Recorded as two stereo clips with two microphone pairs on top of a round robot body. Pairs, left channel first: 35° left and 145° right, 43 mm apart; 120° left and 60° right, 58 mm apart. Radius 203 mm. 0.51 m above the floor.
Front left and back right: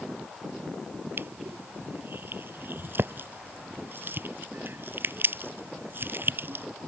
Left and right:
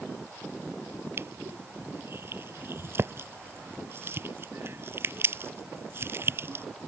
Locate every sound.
1.2 s crushing: 105° right